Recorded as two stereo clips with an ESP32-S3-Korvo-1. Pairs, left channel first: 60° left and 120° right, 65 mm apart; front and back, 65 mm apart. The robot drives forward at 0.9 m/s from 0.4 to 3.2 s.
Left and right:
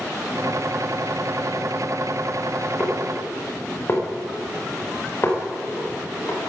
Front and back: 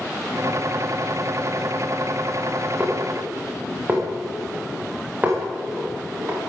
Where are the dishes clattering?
110° left, 8.5 m.